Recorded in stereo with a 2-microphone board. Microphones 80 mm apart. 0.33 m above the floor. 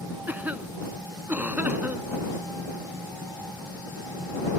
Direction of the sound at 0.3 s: 20° right (ahead or behind).